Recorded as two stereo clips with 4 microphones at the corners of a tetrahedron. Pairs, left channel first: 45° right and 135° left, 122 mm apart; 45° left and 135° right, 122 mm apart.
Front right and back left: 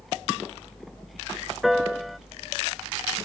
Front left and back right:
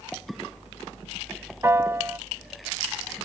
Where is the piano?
140° right.